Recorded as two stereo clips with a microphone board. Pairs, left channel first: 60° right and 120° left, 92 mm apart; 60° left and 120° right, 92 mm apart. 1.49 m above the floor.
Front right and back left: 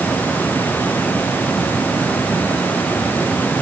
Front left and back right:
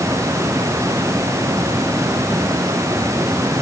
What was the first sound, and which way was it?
Only background noise.